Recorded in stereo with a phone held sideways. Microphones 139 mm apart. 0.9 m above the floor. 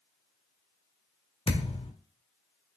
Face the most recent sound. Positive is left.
turn(degrees=45)  # may be behind; listen again after turning